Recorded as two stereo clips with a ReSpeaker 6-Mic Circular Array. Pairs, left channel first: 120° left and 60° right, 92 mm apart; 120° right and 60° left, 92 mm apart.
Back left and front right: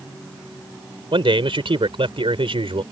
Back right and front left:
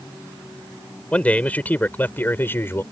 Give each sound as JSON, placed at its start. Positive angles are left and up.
{"t": 1.1, "sound": "a man speaking", "azimuth_deg": -45}